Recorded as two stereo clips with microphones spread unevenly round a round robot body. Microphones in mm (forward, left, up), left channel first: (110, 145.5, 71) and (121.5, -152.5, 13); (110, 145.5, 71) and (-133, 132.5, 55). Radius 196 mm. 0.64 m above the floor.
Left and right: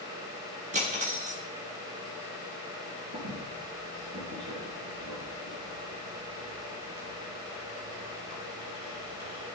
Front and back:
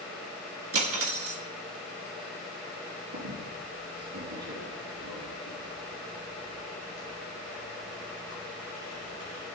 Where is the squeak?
135° right, 3.5 m.